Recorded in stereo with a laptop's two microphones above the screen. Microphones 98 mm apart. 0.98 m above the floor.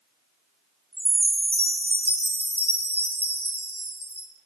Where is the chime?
85° right, 0.8 m.